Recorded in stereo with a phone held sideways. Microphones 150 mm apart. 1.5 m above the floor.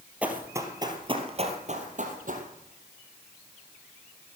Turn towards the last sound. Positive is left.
turn(degrees=-60)  # may be behind; listen again after turning